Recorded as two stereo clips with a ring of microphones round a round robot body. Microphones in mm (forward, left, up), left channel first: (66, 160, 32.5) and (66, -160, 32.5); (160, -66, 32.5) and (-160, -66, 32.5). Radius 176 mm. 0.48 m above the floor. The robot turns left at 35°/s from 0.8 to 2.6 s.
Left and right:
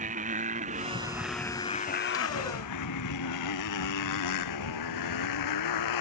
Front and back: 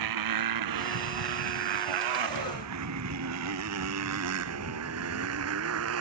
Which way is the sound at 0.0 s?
160° right.